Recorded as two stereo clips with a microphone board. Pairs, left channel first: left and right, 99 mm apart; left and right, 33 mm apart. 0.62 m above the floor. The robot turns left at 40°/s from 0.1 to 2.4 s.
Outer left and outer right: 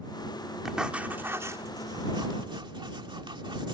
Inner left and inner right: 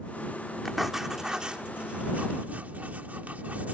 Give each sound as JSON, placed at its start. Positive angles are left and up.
{"t": 0.7, "sound": "writing", "side_deg": -5}